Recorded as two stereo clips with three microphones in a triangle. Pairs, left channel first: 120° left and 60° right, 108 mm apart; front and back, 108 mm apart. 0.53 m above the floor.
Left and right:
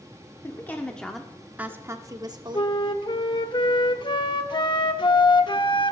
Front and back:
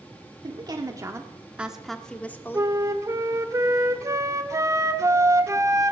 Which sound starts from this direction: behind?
A woman speaking, at 0.4 s.